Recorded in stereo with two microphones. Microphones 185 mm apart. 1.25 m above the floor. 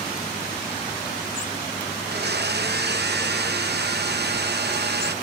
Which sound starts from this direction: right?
A blender, at 2.0 s.